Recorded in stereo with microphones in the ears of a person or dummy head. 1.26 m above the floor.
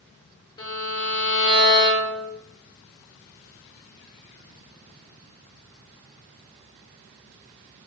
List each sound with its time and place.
0.6 s a violin: 20° left (ahead or behind), 0.6 m